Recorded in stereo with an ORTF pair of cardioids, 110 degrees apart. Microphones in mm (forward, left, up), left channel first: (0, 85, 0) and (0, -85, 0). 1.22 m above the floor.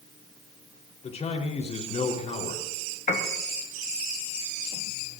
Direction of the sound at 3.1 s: 45° left.